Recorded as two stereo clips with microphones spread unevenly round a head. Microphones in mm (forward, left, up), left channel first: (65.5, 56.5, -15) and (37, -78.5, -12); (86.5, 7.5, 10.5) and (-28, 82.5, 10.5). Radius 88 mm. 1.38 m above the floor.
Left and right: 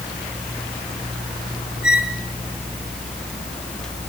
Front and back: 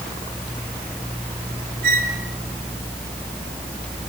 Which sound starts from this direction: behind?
A squeak, at 1.8 s.